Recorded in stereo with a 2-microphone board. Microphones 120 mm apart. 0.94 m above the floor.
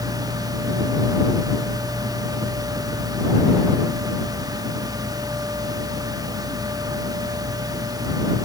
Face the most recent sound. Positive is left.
No sound to turn to.